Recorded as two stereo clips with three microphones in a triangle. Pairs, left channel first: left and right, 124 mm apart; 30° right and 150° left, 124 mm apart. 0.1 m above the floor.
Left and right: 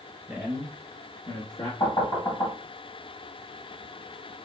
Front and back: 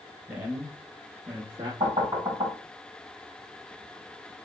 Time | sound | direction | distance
0.3 | a man speaking | 135° right | 1.2 m
1.8 | knocking | 125° left | 1.9 m